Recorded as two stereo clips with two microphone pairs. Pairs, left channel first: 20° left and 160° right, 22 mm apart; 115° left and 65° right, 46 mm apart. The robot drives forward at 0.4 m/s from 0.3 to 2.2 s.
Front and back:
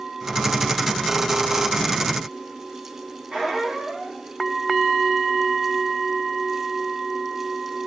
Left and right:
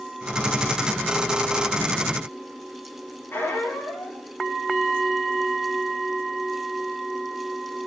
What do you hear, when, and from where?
3.3 s a squeak: 150° left, 6 m